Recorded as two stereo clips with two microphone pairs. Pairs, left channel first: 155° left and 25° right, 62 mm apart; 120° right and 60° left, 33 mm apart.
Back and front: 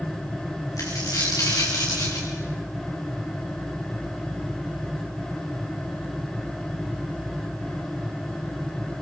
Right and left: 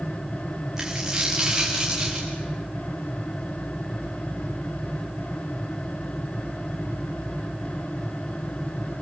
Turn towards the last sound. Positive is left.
turn(degrees=130)